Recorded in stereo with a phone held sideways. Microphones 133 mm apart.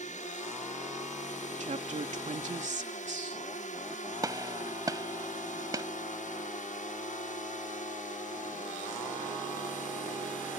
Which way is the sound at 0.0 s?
70° left (ahead or behind).